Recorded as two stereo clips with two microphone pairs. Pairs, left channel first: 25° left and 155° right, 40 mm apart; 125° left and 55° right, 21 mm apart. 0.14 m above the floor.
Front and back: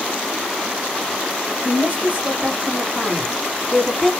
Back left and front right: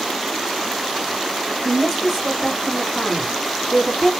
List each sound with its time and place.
1.6 s a woman speaking: 155° right, 2.5 m; by 4.1 s 105° left, 1.8 m